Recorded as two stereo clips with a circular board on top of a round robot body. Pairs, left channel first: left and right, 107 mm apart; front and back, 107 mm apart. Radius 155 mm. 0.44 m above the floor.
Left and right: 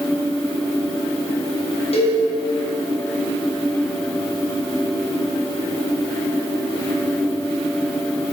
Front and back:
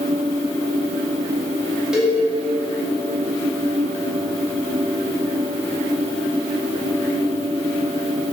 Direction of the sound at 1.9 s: 95° left.